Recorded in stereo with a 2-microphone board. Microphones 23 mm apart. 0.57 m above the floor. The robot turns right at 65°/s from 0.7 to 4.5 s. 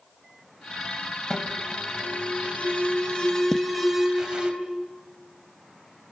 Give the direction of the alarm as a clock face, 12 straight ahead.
11 o'clock.